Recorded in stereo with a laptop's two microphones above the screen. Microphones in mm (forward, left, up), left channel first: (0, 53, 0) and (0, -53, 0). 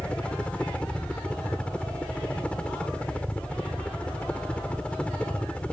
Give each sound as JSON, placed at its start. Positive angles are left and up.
{"t": 0.0, "sound": "a helicopter", "side_deg": 10}